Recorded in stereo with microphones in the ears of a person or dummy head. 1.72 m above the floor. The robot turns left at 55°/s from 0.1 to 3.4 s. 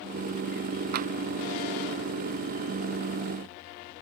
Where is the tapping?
50° right (ahead or behind); by 1.1 s 40° right (ahead or behind).